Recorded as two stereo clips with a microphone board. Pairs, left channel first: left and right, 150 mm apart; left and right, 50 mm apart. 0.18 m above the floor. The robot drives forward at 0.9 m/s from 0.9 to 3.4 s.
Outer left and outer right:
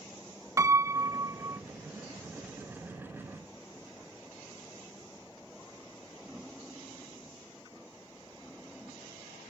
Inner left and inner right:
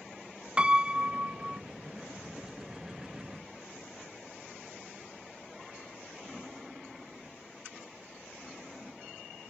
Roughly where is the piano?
Right.